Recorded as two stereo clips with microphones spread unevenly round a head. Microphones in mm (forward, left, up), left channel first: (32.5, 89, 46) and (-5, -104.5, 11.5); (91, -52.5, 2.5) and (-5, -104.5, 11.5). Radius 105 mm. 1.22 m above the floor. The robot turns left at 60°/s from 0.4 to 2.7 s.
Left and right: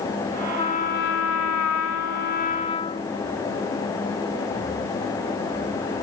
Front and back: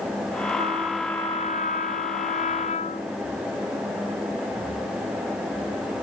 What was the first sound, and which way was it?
A trumpet, 145° left.